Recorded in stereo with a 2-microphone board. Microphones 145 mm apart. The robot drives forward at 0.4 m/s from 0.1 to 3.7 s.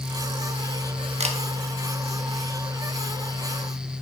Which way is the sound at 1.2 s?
50° right (ahead or behind).